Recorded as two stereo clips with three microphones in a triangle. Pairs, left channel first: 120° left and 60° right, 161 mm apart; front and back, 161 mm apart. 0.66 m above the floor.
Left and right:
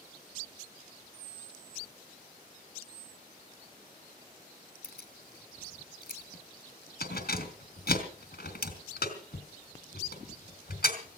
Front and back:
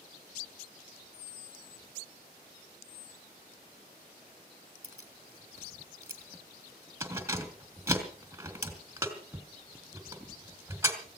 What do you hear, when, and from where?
4.8 s keys jangling: 105° left, 2.5 m